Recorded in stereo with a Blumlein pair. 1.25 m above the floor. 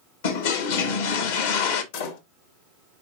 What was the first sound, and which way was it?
A toilet flushing, 55° left.